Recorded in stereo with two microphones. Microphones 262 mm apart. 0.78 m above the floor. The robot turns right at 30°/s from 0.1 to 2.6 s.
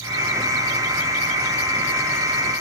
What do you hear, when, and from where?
Only background noise.